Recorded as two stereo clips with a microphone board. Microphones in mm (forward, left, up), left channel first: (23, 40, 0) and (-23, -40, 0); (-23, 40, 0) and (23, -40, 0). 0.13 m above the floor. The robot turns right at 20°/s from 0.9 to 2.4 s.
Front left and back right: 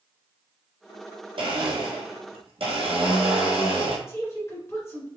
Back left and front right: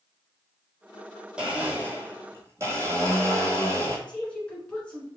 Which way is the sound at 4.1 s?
55° left.